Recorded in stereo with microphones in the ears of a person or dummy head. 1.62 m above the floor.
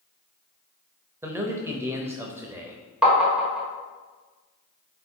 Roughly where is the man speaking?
Centre.